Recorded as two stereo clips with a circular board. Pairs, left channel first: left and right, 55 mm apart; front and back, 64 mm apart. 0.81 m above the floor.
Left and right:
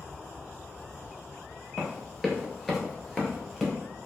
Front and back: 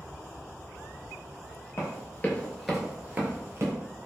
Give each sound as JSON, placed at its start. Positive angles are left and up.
{"t": 1.8, "sound": "running footsteps", "azimuth_deg": 0, "distance_m": 1.0}